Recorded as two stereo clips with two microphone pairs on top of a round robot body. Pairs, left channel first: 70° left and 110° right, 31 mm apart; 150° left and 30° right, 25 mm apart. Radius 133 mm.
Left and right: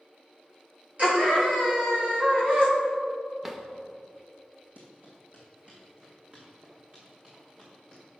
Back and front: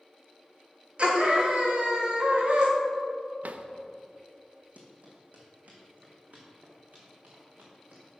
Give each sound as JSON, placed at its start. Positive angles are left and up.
{"t": 1.0, "sound": "a scream", "azimuth_deg": -70, "distance_m": 2.5}
{"t": 3.4, "sound": "a drawer", "azimuth_deg": -25, "distance_m": 0.6}
{"t": 4.8, "sound": "running footsteps", "azimuth_deg": -70, "distance_m": 2.0}